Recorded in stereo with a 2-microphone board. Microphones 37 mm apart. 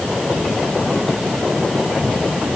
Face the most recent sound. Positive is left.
No sound to turn to.